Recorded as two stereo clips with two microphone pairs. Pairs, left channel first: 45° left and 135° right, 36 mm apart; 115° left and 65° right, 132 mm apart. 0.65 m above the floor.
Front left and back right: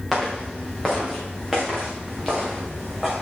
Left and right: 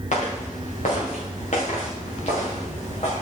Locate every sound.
0.1 s footsteps: 135° left, 5.5 m; by 3.2 s 145° left, 3 m